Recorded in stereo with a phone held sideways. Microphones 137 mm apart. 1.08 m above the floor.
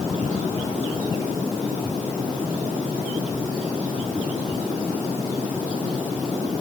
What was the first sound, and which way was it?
Only background noise.